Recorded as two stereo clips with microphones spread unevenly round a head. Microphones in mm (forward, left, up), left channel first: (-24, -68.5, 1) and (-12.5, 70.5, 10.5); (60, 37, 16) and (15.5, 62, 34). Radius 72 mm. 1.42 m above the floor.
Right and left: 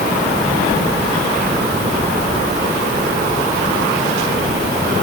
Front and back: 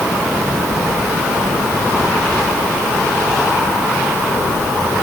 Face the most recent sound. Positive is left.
No sound to turn to.